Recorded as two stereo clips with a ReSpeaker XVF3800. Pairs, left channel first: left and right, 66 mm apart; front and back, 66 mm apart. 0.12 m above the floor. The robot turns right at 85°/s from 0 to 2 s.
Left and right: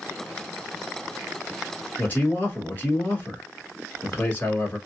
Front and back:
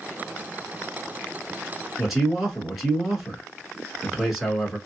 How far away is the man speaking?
About 1.4 m.